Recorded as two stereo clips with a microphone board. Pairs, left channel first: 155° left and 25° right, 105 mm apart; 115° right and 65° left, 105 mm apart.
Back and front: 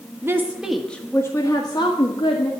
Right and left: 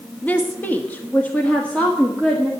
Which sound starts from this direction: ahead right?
A woman speaking, at 0.2 s.